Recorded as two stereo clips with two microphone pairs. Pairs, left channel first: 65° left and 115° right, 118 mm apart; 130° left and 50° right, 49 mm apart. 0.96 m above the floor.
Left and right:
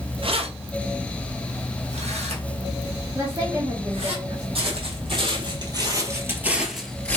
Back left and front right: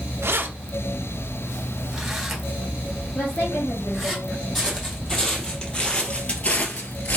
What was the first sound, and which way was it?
Keys jangling, 80° right.